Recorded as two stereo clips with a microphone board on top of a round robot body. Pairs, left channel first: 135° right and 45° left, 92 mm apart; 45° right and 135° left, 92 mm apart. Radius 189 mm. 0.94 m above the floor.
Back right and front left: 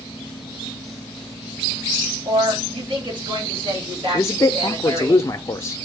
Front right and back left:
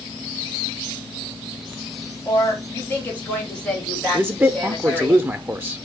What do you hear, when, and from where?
2.2 s a woman speaking: 15° left, 1.9 m; by 5.1 s 45° left, 3 m
4.1 s a man speaking: 170° right, 0.6 m